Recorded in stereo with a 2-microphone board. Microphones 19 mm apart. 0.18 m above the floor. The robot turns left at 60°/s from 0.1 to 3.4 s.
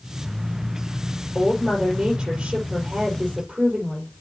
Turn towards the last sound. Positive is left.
turn(degrees=-120)